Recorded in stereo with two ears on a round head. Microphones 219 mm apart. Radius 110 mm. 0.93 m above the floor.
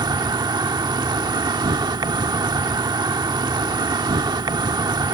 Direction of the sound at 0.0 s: 20° right (ahead or behind).